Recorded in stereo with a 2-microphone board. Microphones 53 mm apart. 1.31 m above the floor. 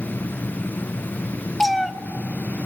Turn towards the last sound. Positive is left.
turn(degrees=5)  # may be behind; listen again after turning